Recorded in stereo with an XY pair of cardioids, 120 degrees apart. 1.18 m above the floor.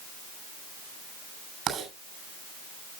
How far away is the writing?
About 7 m.